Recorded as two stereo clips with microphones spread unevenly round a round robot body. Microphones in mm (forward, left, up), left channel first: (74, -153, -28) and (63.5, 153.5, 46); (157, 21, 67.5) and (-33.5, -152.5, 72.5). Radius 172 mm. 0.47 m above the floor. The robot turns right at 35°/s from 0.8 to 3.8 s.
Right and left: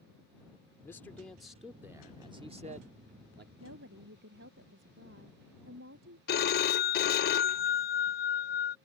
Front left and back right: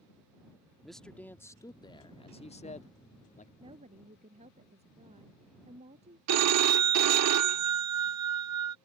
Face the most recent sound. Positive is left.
turn(degrees=-135)